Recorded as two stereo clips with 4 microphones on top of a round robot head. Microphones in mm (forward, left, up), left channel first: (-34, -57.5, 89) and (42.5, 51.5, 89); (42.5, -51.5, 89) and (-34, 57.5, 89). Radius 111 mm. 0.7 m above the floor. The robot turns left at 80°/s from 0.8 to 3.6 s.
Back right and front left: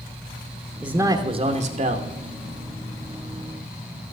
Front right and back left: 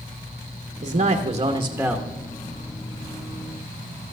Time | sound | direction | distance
0.8 | a man speaking | 125° left | 1.2 m